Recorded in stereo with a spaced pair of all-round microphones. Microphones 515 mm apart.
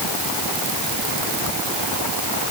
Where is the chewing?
I don't hear chewing.